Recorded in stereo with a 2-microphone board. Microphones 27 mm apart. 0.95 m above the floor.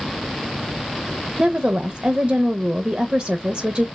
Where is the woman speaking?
50° right (ahead or behind), 0.6 m.